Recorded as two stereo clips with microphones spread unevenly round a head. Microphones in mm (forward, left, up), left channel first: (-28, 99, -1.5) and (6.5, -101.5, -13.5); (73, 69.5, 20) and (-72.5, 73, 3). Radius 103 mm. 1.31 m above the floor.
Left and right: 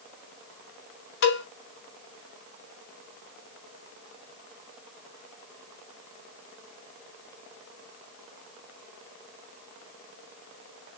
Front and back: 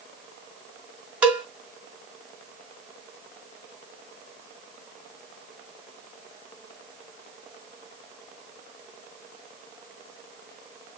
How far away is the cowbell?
About 2.5 m.